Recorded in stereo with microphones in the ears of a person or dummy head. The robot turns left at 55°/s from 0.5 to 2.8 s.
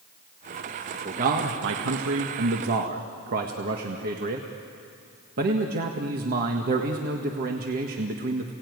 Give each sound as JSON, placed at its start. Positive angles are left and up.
{"t": 1.1, "sound": "a man speaking", "azimuth_deg": -35, "distance_m": 1.6}